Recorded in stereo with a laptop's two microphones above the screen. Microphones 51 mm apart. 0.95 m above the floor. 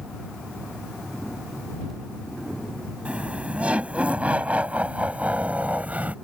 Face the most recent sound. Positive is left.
turn(degrees=-30)  # may be behind; listen again after turning